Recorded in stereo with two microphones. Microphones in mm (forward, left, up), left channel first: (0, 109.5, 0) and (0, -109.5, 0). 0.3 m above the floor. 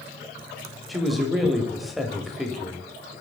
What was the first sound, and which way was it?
A man speaking, centre (ahead or behind).